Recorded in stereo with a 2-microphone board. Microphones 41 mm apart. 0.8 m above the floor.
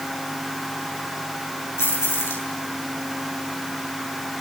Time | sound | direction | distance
1.8 | keys jangling | 90° left | 9 m